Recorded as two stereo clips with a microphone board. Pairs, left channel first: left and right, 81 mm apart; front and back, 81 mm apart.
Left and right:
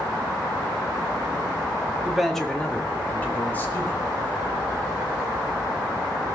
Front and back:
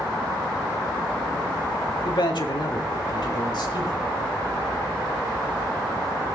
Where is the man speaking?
5° right, 1.5 m; by 4.1 s 30° left, 4 m.